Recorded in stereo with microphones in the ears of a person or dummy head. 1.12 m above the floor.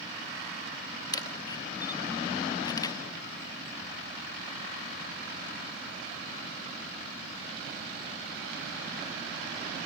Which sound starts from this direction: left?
A camera shutter, at 1.1 s.